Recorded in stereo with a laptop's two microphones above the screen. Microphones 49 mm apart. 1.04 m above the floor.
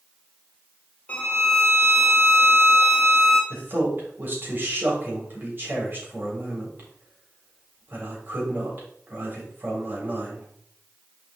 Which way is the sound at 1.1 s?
25° left (ahead or behind).